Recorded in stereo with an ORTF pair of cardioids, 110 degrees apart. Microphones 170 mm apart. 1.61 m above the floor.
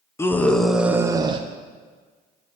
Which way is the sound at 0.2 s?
15° left.